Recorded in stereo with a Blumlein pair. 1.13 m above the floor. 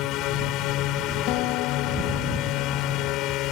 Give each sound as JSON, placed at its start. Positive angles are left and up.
{"t": 0.0, "sound": "a drone", "azimuth_deg": 40}
{"t": 1.3, "sound": "a guitar", "azimuth_deg": 40}